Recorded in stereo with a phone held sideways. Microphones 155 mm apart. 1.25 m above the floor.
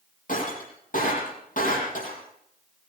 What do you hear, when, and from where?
0.3 s breaking glass: 60° left (ahead or behind), 8 m